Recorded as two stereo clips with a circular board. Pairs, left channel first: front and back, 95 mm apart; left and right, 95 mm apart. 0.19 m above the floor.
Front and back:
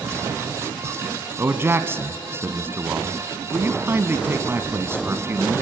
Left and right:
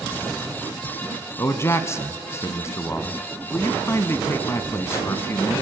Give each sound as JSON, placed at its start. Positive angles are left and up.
{"t": 1.4, "sound": "a man speaking", "azimuth_deg": 130, "distance_m": 1.3}